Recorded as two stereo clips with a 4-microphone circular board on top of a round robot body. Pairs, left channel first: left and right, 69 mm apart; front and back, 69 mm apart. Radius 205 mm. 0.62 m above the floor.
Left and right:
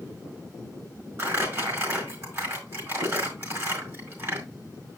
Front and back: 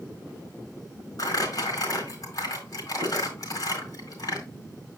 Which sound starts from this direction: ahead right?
Crumpling, at 1.2 s.